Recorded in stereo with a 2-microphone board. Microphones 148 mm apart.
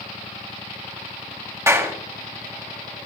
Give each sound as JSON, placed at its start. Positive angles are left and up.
{"t": 1.7, "sound": "a clap", "side_deg": -20, "distance_m": 1.6}